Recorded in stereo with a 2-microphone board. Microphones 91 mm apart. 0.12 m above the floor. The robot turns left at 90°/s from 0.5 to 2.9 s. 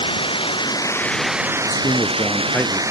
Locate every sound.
0.0 s running water: 70° left; by 2.9 s 145° right
1.7 s a man speaking: 95° left; by 2.8 s 5° right